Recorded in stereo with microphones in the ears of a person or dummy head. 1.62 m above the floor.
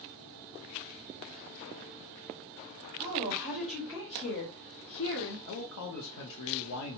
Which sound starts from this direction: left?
A man speaking, at 5.5 s.